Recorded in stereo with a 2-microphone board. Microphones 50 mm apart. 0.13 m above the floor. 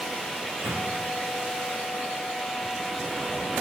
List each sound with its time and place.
0.4 s a microwave: 50° right (ahead or behind), 7 m